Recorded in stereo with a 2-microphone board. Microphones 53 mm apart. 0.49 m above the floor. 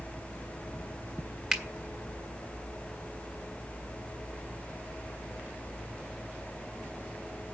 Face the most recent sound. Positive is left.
turn(degrees=-5)  # may be behind; listen again after turning